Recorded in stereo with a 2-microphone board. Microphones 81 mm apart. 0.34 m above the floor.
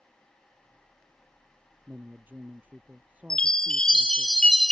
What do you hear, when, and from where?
1.9 s a man speaking: 25° right (ahead or behind); by 4.3 s 15° right (ahead or behind)
3.3 s a chime: 10° left (ahead or behind)